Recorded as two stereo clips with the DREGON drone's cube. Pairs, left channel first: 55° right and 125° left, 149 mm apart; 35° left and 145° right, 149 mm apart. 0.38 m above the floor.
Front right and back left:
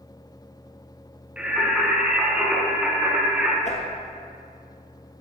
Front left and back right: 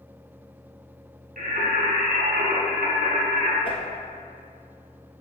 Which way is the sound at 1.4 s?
155° right.